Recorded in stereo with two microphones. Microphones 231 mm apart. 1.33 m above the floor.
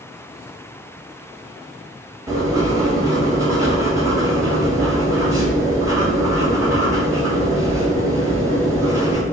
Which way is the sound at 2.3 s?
15° right (ahead or behind).